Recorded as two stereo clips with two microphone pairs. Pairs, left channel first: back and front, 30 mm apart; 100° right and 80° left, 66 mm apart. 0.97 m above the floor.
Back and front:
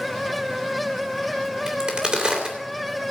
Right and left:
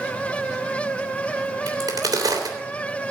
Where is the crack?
55° left, 3 m.